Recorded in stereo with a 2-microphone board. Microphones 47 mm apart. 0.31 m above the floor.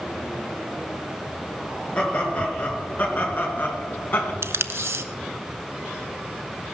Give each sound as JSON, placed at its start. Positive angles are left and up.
{"t": 1.9, "sound": "laughter", "side_deg": 25, "distance_m": 6.0}
{"t": 4.4, "sound": "tape being pulled", "side_deg": -65, "distance_m": 0.7}